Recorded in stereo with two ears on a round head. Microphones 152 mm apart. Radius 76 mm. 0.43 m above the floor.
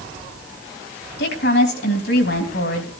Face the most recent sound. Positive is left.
turn(degrees=65)  # may be behind; listen again after turning